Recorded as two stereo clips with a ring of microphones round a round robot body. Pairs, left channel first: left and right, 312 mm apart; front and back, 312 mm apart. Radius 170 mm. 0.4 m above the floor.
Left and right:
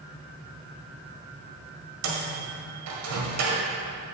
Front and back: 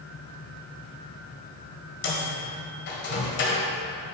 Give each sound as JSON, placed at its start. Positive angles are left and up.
{"t": 2.0, "sound": "a microwave", "azimuth_deg": -55, "distance_m": 1.6}